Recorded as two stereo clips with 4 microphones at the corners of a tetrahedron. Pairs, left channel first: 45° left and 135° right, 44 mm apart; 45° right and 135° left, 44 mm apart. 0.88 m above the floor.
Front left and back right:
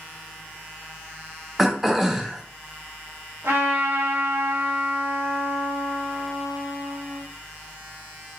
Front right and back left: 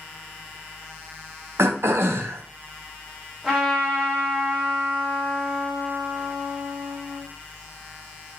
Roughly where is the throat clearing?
Behind left.